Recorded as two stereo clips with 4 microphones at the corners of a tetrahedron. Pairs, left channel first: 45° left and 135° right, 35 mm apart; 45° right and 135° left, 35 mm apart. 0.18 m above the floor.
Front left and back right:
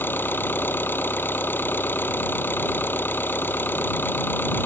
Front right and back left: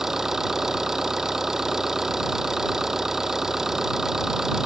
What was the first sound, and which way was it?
An engine running, 55° left.